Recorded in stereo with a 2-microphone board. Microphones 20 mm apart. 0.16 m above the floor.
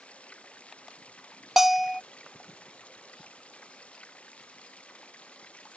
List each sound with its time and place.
0.0 s running water: 80° left
1.6 s a bell: 15° right (ahead or behind)